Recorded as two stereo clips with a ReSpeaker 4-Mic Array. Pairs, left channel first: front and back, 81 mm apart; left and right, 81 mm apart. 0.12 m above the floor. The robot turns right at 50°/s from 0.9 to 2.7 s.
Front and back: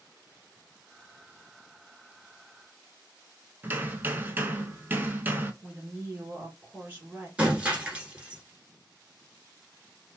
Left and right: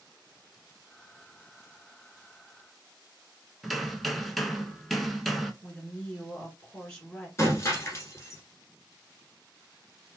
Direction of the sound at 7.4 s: 115° left.